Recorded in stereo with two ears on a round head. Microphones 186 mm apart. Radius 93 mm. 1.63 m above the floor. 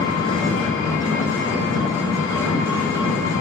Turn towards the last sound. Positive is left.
turn(degrees=65)  # may be behind; listen again after turning